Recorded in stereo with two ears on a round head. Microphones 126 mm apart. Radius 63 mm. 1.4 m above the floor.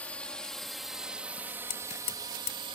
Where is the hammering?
50° left (ahead or behind).